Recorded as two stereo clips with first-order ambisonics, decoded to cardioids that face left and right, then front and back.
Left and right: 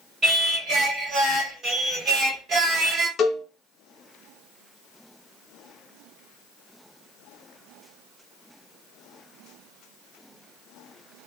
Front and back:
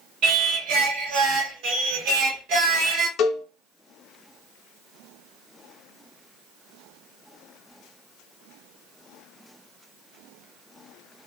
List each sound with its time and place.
0.2 s singing: 155° right, 0.9 m
3.2 s a cowbell: 35° left, 0.6 m